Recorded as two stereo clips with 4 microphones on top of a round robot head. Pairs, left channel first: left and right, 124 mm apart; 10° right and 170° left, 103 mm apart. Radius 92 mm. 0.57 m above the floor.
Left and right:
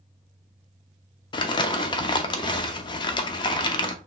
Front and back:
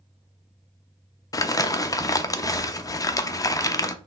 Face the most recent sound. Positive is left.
turn(degrees=40)